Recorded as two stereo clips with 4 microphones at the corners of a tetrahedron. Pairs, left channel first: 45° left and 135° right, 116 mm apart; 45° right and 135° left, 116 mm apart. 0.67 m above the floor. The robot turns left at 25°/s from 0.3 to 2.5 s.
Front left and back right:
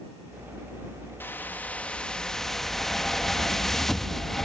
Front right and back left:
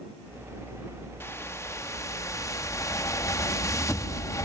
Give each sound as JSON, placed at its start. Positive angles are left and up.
{"t": 1.2, "sound": "a whoosh", "azimuth_deg": -10}